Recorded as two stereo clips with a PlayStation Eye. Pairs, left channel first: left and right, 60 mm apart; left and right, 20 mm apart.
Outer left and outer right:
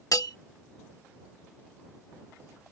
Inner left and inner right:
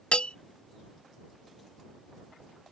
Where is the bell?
80° left.